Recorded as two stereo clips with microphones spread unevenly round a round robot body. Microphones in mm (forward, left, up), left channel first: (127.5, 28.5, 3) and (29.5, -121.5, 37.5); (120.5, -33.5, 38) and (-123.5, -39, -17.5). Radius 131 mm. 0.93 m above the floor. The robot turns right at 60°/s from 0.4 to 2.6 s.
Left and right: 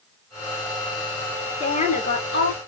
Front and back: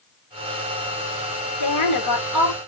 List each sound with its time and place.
1.6 s a woman speaking: straight ahead, 3 m; by 2.6 s 60° left, 3 m